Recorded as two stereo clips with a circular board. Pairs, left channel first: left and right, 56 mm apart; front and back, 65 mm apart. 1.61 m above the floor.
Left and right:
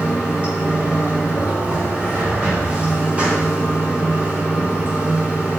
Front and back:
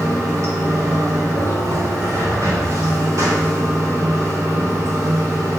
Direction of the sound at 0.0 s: 155° right.